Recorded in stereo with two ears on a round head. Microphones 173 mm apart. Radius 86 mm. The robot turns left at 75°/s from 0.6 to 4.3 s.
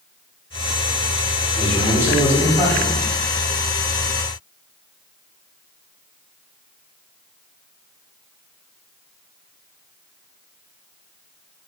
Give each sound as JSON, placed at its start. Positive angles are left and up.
{"t": 1.6, "sound": "a man speaking", "side_deg": 0, "distance_m": 1.5}